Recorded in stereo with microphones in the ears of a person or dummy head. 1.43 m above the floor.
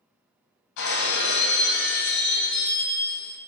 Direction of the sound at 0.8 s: 55° left (ahead or behind).